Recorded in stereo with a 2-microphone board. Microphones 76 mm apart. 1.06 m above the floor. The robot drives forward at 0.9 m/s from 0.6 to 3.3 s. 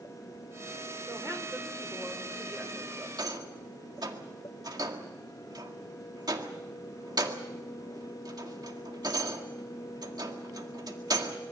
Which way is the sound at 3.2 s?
65° right (ahead or behind).